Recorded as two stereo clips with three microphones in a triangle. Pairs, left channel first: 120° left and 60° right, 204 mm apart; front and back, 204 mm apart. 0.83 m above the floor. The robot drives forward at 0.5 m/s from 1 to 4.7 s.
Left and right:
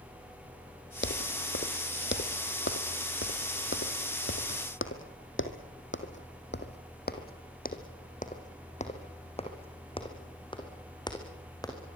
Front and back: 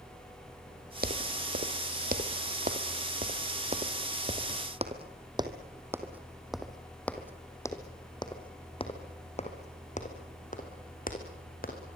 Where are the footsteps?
140° left, 1.8 m; by 11.8 s 45° left, 4.5 m.